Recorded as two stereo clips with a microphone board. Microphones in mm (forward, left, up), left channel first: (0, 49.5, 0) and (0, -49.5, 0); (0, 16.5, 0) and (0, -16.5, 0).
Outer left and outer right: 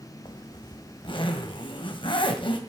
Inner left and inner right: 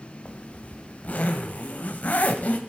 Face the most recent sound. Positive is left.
turn(degrees=55)  # may be behind; listen again after turning